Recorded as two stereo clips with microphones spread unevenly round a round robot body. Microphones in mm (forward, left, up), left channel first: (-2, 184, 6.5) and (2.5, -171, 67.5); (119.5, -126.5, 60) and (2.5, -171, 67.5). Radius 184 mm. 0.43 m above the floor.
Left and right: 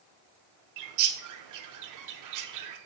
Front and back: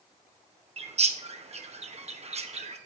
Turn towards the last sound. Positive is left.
turn(degrees=-130)